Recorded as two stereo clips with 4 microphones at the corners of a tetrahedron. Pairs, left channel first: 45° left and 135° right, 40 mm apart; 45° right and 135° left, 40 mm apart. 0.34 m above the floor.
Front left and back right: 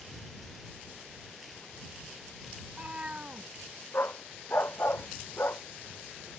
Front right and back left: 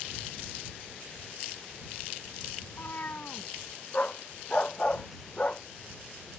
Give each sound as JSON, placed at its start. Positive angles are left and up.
{"t": 2.6, "sound": "a cat meowing", "azimuth_deg": -75}
{"t": 3.9, "sound": "a dog barking", "azimuth_deg": 15}